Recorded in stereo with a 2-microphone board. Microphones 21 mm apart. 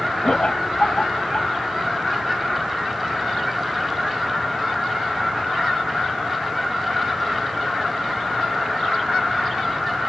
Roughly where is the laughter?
Left.